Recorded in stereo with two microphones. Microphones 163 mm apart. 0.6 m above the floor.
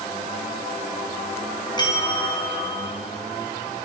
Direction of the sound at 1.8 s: 25° left (ahead or behind).